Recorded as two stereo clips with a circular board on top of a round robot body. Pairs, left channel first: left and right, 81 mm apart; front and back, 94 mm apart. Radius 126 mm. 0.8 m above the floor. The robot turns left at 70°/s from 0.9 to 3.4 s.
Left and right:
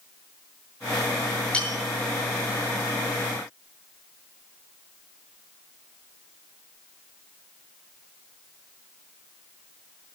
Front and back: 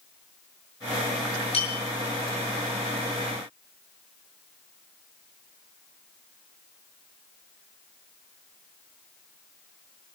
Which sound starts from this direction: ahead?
A bell, at 1.5 s.